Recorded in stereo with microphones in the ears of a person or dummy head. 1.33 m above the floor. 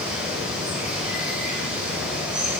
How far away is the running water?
About 5.5 m.